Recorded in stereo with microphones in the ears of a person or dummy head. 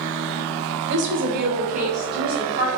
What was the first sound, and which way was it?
A woman speaking, 60° right (ahead or behind).